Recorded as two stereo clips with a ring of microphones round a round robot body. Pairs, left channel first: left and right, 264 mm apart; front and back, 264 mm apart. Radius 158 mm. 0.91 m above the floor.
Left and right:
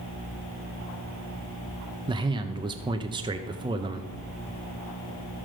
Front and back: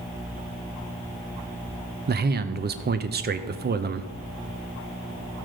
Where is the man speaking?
155° right, 0.5 m.